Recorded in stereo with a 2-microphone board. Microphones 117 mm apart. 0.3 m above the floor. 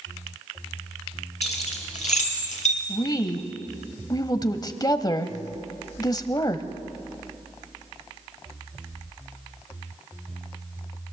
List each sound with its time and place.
1.4 s keys jangling: 75° left (ahead or behind), 4.5 m; by 2.8 s 80° left, 4 m
2.9 s a woman speaking: 35° left (ahead or behind), 1.2 m